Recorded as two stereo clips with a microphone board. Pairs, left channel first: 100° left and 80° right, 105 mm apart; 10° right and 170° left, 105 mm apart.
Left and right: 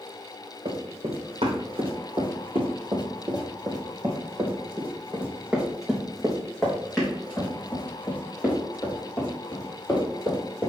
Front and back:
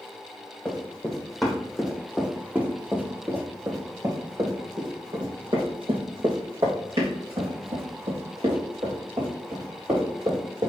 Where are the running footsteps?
90° right, 3.5 m; by 10.7 s 165° left, 6.5 m.